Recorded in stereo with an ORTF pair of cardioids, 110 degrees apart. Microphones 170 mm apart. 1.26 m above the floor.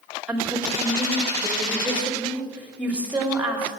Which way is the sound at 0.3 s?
10° right.